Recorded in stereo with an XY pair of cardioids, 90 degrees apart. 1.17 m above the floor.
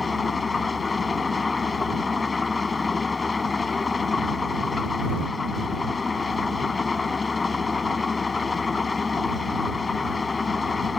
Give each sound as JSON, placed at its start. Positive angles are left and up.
{"t": 0.0, "sound": "an engine running", "azimuth_deg": 35}